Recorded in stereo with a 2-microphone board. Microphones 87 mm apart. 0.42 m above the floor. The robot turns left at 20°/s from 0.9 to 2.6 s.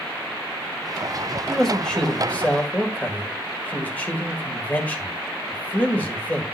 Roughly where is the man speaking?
Centre.